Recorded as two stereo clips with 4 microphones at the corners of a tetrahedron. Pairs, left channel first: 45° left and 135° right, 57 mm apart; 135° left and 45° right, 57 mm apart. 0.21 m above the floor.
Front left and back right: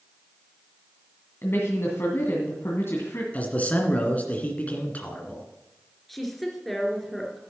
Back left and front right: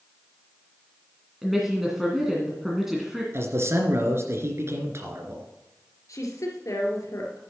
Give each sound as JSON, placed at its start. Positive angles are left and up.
{"t": 1.4, "sound": "a woman speaking", "azimuth_deg": 40, "distance_m": 2.0}
{"t": 3.3, "sound": "a man speaking", "azimuth_deg": -15, "distance_m": 2.0}
{"t": 6.1, "sound": "a woman speaking", "azimuth_deg": 135, "distance_m": 3.0}